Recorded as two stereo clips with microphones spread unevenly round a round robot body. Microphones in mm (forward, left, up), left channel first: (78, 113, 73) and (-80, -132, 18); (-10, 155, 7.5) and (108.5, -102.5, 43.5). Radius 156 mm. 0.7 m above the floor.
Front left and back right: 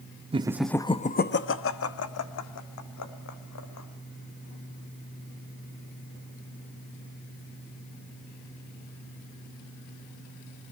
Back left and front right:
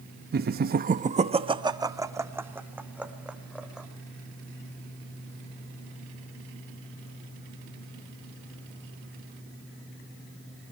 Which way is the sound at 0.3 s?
100° right.